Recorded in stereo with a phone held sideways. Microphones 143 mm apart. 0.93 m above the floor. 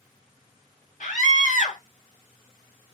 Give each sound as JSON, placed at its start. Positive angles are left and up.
{"t": 1.0, "sound": "a scream", "side_deg": 60, "distance_m": 1.9}